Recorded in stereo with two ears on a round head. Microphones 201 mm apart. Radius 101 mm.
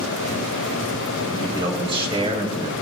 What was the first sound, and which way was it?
A man speaking, 20° right (ahead or behind).